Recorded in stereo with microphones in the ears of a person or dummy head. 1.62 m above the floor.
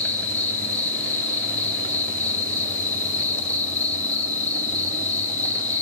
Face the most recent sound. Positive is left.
turn(degrees=10)  # may be behind; listen again after turning